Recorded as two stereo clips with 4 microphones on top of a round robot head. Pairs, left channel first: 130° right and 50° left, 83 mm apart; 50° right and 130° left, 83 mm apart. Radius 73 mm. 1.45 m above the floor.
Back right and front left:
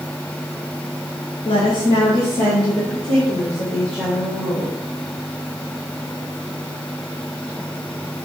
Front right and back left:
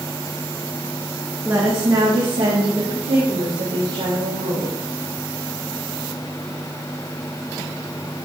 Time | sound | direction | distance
1.4 | a woman speaking | 160° right | 1.2 m